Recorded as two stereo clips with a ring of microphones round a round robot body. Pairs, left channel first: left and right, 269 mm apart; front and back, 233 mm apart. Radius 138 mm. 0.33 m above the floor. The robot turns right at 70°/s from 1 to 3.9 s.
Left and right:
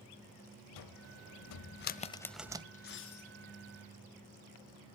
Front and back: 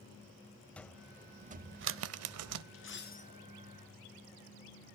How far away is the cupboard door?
About 0.6 m.